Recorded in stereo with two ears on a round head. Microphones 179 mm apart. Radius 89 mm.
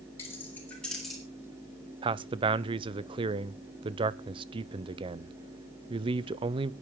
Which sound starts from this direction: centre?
Keys jangling, at 0.2 s.